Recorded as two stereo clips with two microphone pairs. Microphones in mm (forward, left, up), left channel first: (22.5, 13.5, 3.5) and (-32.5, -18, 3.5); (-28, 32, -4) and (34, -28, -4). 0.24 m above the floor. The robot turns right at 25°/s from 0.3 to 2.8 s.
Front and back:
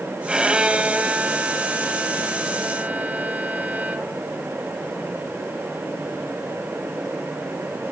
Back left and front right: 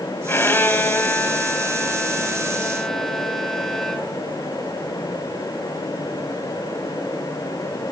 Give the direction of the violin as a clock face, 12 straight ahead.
7 o'clock.